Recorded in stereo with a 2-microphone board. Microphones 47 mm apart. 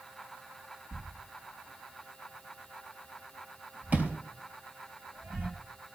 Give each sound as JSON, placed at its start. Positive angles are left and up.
{"t": 0.9, "sound": "a thud", "side_deg": -40, "distance_m": 3.5}